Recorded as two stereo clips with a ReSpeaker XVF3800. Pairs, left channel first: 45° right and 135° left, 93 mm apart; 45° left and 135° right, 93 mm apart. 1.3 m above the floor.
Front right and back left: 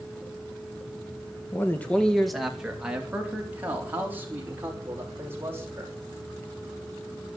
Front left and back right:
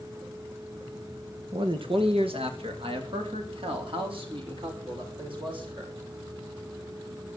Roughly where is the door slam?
I don't hear a door slam.